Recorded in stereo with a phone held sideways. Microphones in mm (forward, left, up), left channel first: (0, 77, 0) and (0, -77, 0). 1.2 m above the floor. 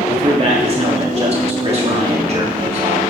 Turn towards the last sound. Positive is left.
turn(degrees=-40)  # may be behind; listen again after turning